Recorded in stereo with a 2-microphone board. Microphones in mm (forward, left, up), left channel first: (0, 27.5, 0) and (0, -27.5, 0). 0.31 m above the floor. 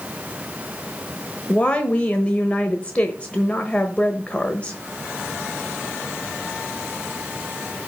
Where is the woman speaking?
25° left (ahead or behind), 1.0 m.